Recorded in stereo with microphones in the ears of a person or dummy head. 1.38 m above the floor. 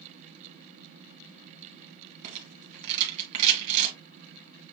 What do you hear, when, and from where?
2.2 s a rattle: 40° right (ahead or behind), 2 m